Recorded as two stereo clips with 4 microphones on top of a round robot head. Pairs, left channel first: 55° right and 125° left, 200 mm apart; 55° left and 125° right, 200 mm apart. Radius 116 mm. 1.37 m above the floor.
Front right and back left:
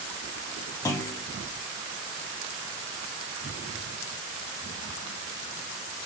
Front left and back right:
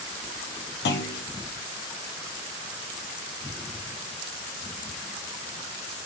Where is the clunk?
20° left, 1.3 m.